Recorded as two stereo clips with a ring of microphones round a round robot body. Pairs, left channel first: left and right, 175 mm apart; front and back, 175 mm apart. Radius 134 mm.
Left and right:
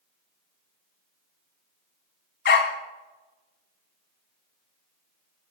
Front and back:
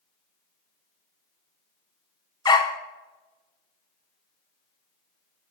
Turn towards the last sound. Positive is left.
turn(degrees=70)